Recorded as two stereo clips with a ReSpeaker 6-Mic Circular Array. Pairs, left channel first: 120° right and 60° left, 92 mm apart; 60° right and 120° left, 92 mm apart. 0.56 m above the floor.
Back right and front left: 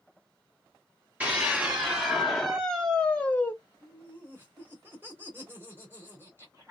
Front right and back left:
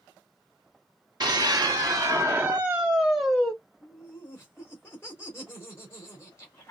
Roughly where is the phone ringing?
No phone ringing in this recording.